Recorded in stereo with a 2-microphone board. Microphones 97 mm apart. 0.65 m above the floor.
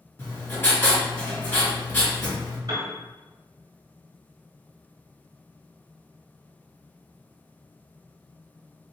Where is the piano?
45° right (ahead or behind), 1.7 m.